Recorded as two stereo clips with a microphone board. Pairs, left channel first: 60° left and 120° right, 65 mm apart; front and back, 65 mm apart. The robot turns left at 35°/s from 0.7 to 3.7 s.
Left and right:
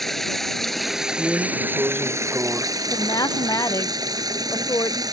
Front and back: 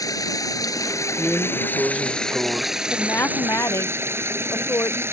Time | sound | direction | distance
0.0 | running water | 25° right | ?
1.2 | a drawer | 100° right | ?
2.9 | a woman speaking | 60° left | ?